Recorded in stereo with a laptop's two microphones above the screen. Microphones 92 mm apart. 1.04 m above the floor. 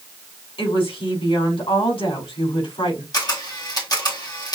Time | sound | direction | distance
0.6 | a woman speaking | 85° left | 3.5 m
3.1 | a camera shutter | 45° left (ahead or behind) | 1.5 m